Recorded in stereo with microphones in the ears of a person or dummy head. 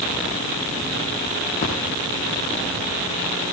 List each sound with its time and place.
1.6 s a splash: 45° left (ahead or behind), 9.5 m